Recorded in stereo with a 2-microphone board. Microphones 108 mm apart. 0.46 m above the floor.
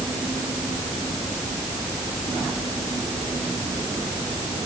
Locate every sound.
Only background noise.